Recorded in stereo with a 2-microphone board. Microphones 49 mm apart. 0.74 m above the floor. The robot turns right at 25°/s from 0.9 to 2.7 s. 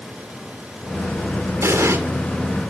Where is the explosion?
70° right (ahead or behind), 2.5 m.